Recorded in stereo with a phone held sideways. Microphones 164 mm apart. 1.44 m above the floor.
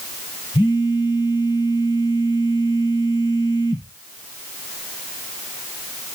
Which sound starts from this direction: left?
A phone buzzing, at 0.5 s.